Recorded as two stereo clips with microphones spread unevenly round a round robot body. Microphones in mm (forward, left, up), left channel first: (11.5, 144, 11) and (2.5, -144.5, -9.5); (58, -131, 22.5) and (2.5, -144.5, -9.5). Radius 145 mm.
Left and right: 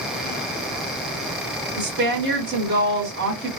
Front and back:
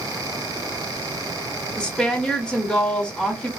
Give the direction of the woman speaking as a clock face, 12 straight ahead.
3 o'clock.